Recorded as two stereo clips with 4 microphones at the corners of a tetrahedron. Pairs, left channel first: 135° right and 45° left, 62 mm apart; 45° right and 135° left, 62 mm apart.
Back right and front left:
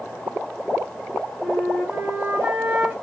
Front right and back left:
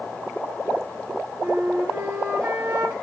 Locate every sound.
1.4 s a flute: 100° left, 2 m